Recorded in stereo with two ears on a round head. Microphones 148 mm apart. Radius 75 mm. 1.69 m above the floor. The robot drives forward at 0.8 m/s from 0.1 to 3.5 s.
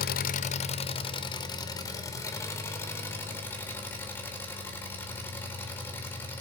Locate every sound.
0.0 s an engine running: 60° left (ahead or behind), 0.8 m; by 6.4 s 15° left (ahead or behind), 3 m